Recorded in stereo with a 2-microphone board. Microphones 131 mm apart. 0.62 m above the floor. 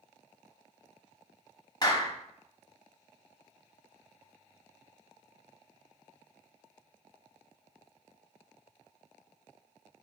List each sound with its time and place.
1.8 s a clap: 30° left (ahead or behind), 0.8 m